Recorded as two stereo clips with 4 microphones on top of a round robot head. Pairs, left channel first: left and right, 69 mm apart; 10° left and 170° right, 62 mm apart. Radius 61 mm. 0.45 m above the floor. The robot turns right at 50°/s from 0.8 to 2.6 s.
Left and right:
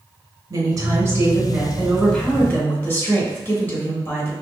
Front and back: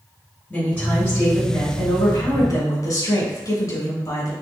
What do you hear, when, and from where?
0.5 s a woman speaking: 65° right, 2 m; by 4.3 s 25° left, 2 m